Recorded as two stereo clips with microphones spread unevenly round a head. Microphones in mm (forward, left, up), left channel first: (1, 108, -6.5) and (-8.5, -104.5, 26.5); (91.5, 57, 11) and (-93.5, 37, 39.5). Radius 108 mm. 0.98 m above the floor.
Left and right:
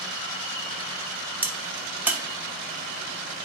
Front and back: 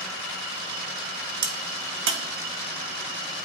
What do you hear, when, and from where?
1.4 s a crack: 170° right, 0.9 m